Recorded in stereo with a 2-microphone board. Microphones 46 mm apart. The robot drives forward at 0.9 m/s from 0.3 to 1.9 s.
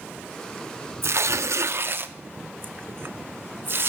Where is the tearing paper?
60° right (ahead or behind), 0.7 m; by 3.9 s 55° right (ahead or behind), 0.8 m.